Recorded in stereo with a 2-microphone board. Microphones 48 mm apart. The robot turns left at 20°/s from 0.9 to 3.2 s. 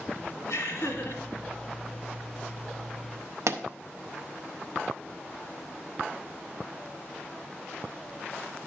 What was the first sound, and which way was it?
Laughter, 65° left (ahead or behind).